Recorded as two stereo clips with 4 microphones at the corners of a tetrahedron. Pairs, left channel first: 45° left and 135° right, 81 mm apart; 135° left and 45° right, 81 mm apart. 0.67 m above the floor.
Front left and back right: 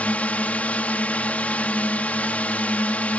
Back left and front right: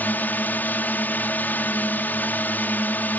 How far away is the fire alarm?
No fire alarm in this recording.